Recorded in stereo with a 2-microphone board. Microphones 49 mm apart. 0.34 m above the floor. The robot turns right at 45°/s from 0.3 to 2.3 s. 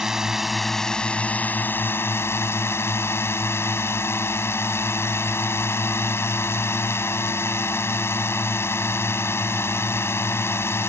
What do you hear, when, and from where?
0.0 s a drone: 10° right; by 10.9 s 80° left